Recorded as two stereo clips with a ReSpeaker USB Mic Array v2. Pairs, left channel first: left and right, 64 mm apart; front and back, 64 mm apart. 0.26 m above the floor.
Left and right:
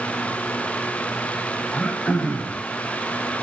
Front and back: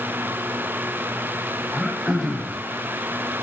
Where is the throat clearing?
75° left, 1.5 m.